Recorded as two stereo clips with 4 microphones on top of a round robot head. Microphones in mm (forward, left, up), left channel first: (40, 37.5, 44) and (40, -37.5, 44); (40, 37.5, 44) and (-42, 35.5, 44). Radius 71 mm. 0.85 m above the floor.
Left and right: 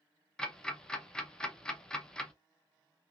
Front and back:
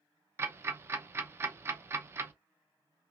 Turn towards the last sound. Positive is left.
turn(degrees=160)